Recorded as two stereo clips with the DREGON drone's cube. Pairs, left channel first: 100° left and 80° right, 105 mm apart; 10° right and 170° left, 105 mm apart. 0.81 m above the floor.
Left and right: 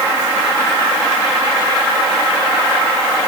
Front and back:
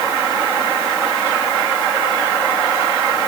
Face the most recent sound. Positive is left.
No sound to turn to.